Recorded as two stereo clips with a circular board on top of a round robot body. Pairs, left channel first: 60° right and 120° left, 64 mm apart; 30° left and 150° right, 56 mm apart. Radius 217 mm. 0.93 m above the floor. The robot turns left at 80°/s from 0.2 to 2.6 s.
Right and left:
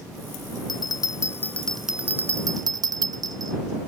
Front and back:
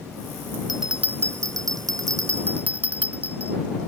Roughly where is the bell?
Ahead right.